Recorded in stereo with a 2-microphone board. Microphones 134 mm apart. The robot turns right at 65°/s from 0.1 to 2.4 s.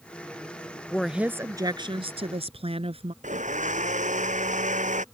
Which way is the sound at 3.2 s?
70° right (ahead or behind).